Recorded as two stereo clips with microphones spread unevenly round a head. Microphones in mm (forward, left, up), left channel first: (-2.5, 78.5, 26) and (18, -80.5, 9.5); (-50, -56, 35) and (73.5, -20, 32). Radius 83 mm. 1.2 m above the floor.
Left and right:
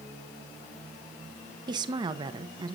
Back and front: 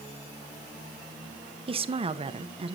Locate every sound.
1.7 s a woman speaking: 25° right, 1.0 m